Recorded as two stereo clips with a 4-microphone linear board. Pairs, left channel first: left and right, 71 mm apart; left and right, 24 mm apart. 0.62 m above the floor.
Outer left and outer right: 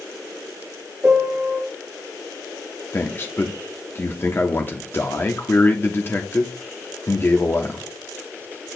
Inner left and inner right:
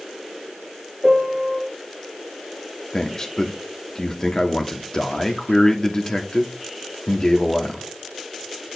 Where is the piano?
25° right (ahead or behind), 0.9 m.